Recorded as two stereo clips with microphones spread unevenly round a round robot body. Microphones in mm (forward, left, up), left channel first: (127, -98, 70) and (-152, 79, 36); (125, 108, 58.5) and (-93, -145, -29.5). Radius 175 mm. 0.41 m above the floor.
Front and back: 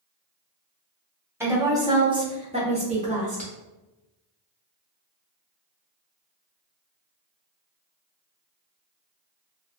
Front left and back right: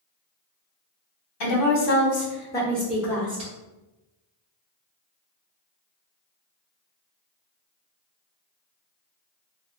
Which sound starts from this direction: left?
A woman speaking, at 1.4 s.